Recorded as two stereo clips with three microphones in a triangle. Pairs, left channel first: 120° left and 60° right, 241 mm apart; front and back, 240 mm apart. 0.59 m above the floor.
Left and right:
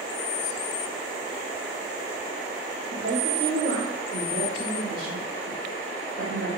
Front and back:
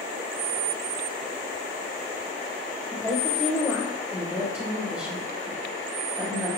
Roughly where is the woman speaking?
Right.